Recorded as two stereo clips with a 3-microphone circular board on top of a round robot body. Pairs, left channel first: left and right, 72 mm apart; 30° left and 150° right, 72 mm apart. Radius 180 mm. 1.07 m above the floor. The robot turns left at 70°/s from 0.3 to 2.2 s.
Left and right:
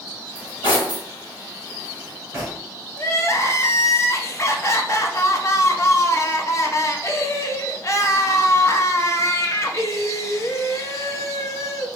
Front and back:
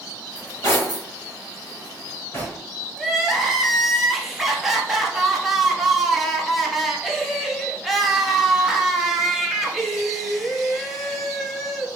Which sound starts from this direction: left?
Cutlery clinking, at 0.3 s.